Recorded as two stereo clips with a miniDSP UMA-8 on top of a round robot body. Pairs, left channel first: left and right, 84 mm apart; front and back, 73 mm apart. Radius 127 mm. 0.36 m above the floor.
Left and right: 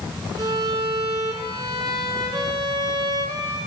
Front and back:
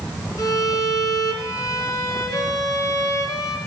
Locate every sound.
0.4 s a violin: 45° right, 2.5 m